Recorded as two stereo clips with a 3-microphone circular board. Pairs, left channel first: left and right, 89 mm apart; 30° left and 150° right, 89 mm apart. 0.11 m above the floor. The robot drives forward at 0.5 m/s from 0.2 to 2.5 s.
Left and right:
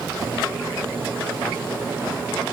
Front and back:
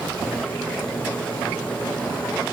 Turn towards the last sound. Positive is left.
No sound to turn to.